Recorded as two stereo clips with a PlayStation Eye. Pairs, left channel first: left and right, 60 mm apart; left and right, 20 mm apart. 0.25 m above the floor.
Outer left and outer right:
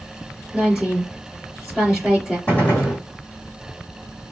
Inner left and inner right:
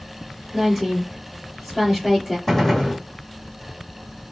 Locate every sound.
0.5 s a woman speaking: centre (ahead or behind), 3 m
2.5 s a gunshot: 25° left (ahead or behind), 2.0 m